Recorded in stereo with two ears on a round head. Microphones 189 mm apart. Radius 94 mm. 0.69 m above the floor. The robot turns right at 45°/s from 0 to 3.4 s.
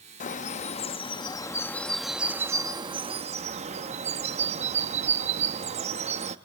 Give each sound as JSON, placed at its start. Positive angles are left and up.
{"t": 0.2, "sound": "a bird", "azimuth_deg": 95, "distance_m": 0.7}